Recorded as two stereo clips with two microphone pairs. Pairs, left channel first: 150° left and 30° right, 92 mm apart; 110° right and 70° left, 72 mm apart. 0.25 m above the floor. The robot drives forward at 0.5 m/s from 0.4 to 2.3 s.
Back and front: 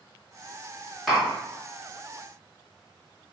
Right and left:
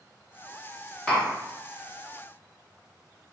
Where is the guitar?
I don't hear a guitar.